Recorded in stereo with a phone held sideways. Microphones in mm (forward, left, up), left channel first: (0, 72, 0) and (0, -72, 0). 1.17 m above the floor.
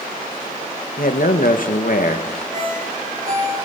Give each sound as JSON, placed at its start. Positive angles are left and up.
{"t": 1.0, "sound": "a man speaking", "side_deg": 70, "distance_m": 1.6}
{"t": 2.5, "sound": "a ringtone", "side_deg": -60, "distance_m": 7.0}